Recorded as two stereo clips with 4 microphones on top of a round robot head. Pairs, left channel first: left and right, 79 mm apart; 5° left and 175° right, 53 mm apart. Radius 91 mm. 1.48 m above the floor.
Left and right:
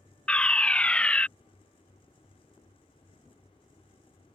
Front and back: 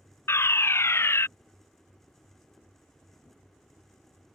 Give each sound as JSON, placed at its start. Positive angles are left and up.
{"t": 0.3, "sound": "a fire alarm", "azimuth_deg": 15}